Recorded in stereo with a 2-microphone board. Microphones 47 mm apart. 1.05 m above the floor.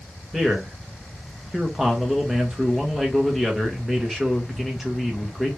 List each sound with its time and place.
0.3 s a man speaking: 5° right (ahead or behind), 1.4 m